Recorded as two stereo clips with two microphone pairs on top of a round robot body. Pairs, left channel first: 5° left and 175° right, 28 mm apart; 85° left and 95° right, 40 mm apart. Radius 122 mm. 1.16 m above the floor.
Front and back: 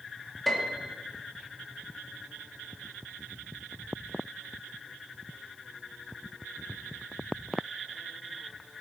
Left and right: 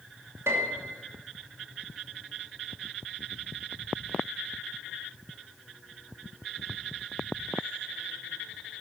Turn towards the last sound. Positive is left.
turn(degrees=-80)